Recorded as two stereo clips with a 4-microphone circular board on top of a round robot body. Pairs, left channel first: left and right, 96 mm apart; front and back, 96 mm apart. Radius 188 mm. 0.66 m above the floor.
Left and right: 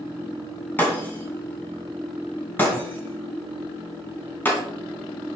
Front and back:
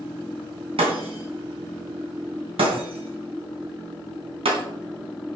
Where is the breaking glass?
160° left, 2.5 m.